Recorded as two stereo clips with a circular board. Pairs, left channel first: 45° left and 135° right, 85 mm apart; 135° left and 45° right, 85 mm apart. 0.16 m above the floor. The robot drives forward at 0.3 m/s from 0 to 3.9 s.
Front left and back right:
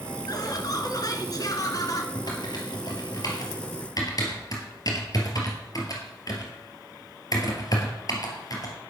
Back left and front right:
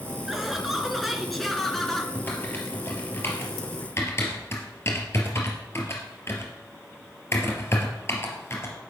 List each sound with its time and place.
0.3 s laughter: 40° left, 2.5 m; by 2.0 s 55° left, 2 m
2.1 s typing on a keyboard: 70° left, 3 m; by 8.7 s 80° left, 3 m